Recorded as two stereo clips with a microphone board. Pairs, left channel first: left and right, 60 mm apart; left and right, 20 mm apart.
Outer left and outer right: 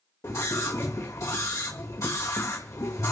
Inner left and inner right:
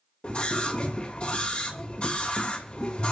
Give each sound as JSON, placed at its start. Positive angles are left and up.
{"t": 0.2, "sound": "a scream", "side_deg": 65, "distance_m": 1.7}